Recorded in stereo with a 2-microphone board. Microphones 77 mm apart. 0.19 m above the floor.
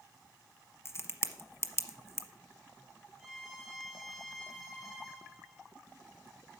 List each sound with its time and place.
0.8 s a crack: 35° left (ahead or behind), 0.9 m
3.2 s a violin: centre (ahead or behind), 2.5 m